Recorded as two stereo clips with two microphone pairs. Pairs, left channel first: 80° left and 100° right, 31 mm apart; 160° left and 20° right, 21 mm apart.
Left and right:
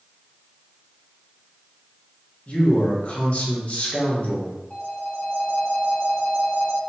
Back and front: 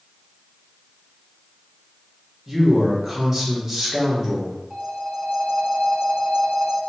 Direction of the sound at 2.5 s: 45° left.